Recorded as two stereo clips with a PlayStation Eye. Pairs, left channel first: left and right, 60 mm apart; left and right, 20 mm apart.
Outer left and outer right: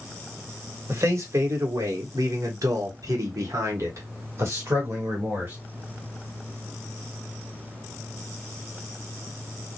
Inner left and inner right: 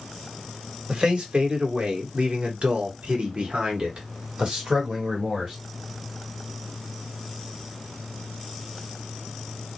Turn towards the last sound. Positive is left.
turn(degrees=-40)  # may be behind; listen again after turning